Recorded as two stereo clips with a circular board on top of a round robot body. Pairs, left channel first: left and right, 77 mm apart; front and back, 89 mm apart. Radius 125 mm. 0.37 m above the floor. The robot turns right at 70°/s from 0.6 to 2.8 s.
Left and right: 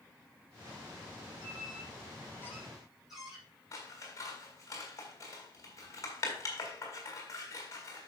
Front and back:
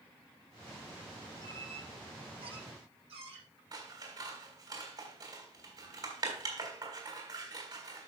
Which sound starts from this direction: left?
A squeak, at 1.4 s.